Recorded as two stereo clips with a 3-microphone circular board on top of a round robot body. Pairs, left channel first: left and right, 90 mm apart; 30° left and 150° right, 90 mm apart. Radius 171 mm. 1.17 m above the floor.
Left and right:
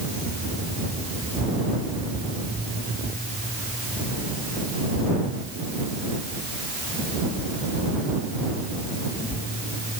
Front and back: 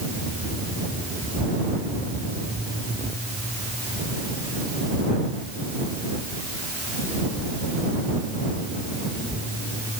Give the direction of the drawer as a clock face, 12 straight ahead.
No drawer in this recording.